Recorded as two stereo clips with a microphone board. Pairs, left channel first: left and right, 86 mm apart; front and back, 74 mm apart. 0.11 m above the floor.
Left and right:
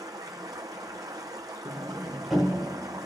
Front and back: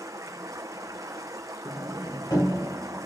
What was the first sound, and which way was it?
Running water, 135° right.